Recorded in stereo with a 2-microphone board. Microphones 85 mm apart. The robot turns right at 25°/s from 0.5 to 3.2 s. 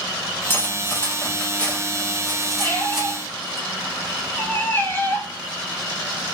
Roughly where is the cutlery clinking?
Left.